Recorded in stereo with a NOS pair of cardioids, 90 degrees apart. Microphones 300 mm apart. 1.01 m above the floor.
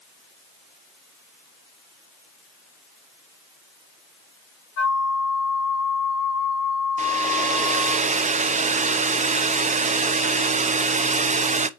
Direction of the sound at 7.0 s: 25° right.